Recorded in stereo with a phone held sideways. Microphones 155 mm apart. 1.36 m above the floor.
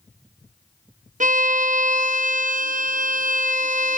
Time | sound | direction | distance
1.2 | a violin | 55° right (ahead or behind) | 1.0 m